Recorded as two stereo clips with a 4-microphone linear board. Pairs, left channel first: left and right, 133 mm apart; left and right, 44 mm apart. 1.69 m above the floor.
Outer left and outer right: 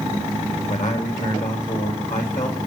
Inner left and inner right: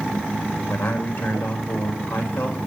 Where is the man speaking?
75° left (ahead or behind), 4 m.